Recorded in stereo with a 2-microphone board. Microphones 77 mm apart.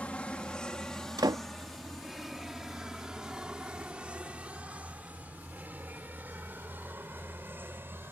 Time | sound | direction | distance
0.0 | an aircraft | 15° left (ahead or behind) | ?
1.2 | a door slam | 65° right (ahead or behind) | ?